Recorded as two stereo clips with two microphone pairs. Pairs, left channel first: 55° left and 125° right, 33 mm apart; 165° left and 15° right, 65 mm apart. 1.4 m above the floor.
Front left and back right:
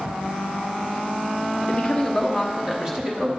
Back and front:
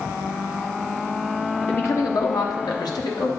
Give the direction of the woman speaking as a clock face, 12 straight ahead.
8 o'clock.